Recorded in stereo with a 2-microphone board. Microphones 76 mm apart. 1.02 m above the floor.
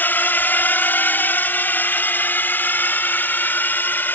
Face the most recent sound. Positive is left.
turn(degrees=25)  # may be behind; listen again after turning